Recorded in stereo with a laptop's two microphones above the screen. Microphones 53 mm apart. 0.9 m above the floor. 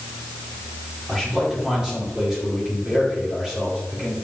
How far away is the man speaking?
About 2.5 m.